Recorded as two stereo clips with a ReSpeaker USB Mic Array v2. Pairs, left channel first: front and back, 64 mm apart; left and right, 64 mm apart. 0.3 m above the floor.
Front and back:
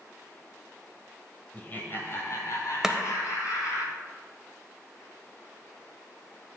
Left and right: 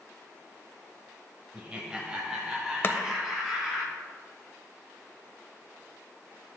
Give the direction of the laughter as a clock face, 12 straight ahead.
1 o'clock.